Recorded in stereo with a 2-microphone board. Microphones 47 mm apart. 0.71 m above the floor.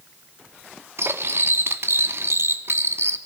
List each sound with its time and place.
1.0 s cutlery clinking: 65° right (ahead or behind), 0.7 m